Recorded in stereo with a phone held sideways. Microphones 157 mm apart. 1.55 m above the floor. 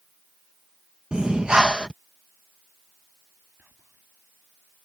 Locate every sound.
1.1 s breathing: 5° right (ahead or behind)
3.6 s whispering: 10° right (ahead or behind)